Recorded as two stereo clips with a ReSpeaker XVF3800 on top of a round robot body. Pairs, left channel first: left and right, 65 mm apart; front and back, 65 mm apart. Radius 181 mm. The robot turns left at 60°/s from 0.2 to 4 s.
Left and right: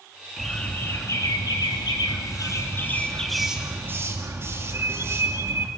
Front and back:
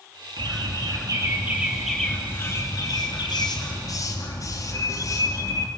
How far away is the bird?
About 3 m.